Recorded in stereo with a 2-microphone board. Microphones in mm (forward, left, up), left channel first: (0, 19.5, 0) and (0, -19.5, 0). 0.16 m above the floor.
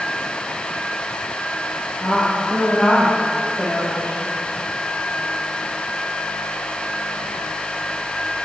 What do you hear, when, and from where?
2.0 s a woman speaking: 45° left (ahead or behind), 5 m